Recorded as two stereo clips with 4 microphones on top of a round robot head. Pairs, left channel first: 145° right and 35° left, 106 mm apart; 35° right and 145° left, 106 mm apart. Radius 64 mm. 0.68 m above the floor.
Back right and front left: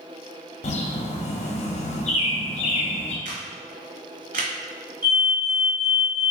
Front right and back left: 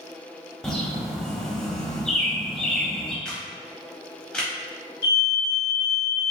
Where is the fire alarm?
15° right, 2.0 m.